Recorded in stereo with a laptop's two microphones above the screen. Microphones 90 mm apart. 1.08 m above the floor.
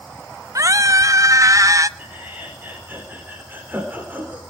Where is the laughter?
20° right (ahead or behind), 4.5 m.